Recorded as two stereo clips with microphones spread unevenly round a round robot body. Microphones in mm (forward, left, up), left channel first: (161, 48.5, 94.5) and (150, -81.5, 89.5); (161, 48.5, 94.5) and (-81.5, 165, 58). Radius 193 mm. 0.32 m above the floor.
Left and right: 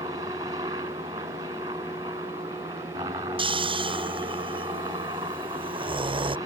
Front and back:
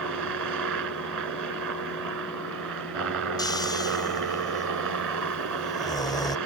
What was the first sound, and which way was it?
A helicopter, 165° right.